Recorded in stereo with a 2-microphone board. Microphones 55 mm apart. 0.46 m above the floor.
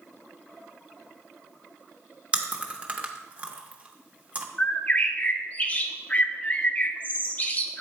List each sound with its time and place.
2.3 s chewing: 25° right (ahead or behind), 0.8 m
4.6 s a bird: 30° left (ahead or behind), 0.6 m